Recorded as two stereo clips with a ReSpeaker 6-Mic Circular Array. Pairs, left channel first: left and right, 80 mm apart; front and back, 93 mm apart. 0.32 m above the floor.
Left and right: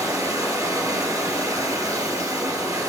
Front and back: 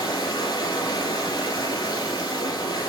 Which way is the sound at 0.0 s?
40° right.